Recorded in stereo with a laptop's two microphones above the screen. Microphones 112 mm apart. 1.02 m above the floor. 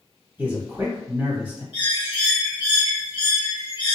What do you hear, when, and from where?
0.4 s a man speaking: 20° right (ahead or behind), 1.3 m
1.7 s a bird: 45° left (ahead or behind), 1.2 m